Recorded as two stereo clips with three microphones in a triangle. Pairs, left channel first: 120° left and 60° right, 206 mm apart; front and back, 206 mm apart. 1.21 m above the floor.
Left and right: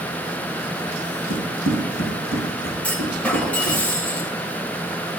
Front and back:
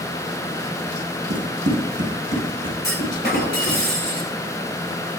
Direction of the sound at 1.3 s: 135° left.